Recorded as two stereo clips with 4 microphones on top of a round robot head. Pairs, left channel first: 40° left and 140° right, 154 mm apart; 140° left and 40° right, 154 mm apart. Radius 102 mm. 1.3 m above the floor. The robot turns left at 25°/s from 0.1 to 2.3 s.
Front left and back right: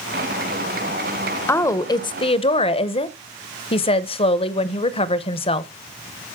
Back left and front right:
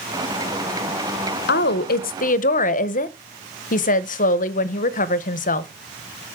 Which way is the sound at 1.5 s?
120° left.